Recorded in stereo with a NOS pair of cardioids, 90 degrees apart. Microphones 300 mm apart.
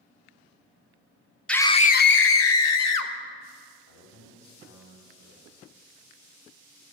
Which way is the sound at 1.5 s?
5° left.